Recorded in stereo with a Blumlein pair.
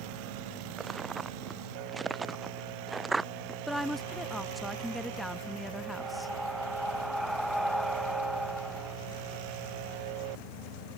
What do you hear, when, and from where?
0.8 s footsteps: 15° right; by 3.6 s 10° right
3.7 s a woman speaking: straight ahead
6.0 s breathing: straight ahead